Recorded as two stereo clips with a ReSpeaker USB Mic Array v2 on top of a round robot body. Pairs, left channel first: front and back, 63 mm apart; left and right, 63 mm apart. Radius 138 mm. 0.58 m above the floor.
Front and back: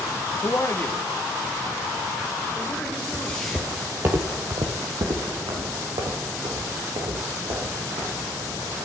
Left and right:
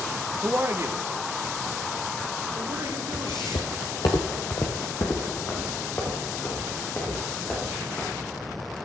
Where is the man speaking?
30° right, 1.1 m; by 3.7 s 80° right, 4 m.